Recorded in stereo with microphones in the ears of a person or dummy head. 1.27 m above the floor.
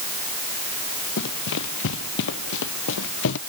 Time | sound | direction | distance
1.2 | running footsteps | 65° left (ahead or behind) | ?